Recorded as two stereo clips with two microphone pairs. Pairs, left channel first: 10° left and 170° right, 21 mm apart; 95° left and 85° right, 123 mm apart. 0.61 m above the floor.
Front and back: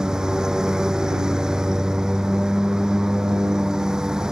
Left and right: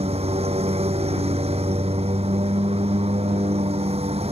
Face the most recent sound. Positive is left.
turn(degrees=-115)